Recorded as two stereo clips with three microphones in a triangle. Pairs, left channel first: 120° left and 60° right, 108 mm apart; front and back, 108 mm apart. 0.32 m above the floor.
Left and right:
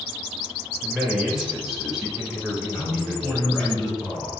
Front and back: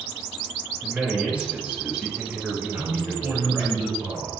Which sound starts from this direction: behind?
A man speaking, at 2.7 s.